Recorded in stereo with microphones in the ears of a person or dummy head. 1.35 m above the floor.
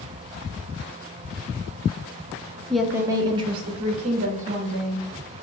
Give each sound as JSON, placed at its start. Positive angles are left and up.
{"t": 2.7, "sound": "a woman speaking", "side_deg": 5, "distance_m": 0.6}